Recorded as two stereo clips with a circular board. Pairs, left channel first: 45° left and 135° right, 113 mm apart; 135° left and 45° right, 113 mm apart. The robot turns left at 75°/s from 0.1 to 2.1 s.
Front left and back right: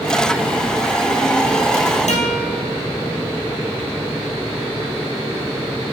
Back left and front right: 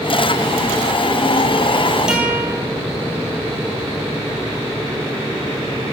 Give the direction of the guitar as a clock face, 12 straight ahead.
11 o'clock.